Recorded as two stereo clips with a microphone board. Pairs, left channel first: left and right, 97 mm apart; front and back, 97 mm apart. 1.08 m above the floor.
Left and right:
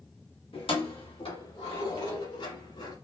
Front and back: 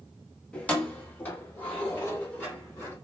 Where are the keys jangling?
75° left, 1.1 m; by 3.0 s 70° left, 3 m.